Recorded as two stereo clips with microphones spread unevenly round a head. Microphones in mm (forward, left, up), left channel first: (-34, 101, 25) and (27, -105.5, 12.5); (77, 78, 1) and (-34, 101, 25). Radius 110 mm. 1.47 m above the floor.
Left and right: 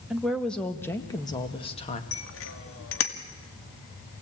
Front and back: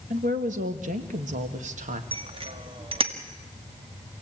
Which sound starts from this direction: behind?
A woman speaking, at 0.1 s.